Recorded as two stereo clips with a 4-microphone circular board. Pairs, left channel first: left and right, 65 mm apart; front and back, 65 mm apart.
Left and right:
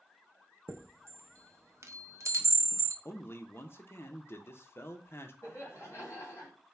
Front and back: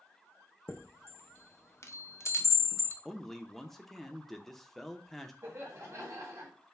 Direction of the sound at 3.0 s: 85° left.